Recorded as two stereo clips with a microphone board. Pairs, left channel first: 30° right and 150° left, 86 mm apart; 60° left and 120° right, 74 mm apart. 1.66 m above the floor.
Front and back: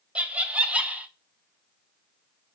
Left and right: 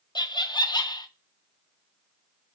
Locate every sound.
0.1 s laughter: 75° left, 0.5 m